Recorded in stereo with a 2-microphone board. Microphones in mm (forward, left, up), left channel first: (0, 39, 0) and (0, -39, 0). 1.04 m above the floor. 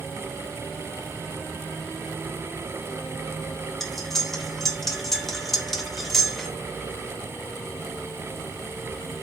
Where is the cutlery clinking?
5° left (ahead or behind), 0.5 m.